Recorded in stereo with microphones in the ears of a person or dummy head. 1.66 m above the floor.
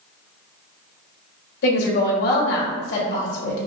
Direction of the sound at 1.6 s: 65° left (ahead or behind).